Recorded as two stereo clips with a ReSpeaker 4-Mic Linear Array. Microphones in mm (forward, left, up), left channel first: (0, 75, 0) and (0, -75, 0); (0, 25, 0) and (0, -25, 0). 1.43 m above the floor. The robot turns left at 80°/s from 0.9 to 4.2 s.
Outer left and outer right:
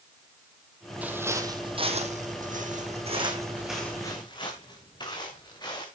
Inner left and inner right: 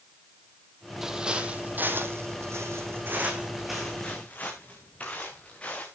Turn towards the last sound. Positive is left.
turn(degrees=30)  # may be behind; listen again after turning